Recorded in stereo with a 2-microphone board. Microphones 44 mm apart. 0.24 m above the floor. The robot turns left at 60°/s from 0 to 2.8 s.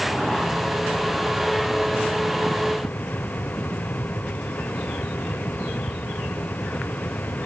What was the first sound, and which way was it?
Only background noise.